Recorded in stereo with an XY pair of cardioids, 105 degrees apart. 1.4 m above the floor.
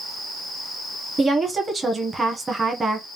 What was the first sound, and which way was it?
A woman speaking, 30° right.